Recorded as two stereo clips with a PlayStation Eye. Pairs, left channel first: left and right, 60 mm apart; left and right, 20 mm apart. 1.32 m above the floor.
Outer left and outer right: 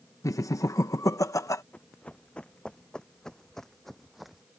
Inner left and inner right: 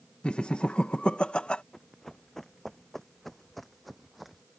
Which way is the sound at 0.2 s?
65° left (ahead or behind).